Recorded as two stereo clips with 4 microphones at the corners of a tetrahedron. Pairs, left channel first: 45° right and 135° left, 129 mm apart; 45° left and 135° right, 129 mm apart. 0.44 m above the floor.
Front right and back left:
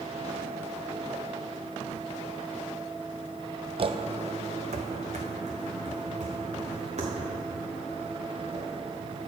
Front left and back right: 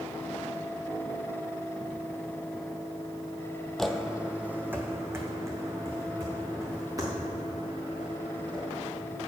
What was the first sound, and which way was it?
Footsteps, 130° left.